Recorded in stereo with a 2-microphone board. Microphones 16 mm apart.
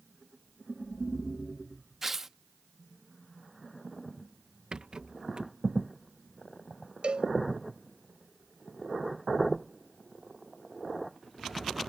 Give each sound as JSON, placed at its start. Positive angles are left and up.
{"t": 2.0, "sound": "tearing paper", "side_deg": -15}
{"t": 4.7, "sound": "a rattle", "side_deg": -60}
{"t": 7.0, "sound": "a cowbell", "side_deg": -70}